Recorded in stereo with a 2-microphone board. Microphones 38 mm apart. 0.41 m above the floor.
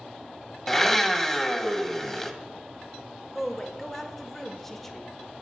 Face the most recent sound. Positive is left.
turn(degrees=5)  # may be behind; listen again after turning